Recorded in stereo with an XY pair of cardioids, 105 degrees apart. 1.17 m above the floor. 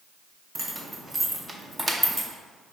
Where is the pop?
No pop in this recording.